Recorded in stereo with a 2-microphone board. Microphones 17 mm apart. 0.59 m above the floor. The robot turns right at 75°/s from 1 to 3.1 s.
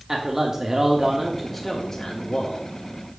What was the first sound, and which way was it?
A man speaking, 35° right.